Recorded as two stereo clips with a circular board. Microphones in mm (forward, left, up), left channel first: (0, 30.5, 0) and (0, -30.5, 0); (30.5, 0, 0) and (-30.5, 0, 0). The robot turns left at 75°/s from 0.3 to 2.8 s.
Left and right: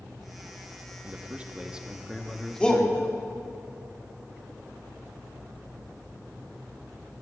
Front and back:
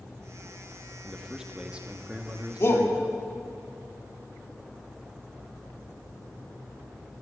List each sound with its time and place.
1.0 s a man speaking: 90° right, 0.8 m; by 3.6 s 140° left, 0.8 m
2.6 s a shout: 25° left, 1.4 m; by 2.9 s 10° left, 1.4 m